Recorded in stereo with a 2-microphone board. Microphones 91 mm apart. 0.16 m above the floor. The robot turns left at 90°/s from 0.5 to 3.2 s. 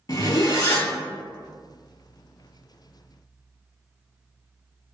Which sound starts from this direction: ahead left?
A zipper, at 0.1 s.